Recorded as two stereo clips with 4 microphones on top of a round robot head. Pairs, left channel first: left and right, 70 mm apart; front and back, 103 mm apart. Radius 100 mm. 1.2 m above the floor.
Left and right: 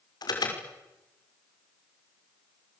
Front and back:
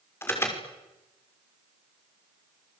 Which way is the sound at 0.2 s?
70° left.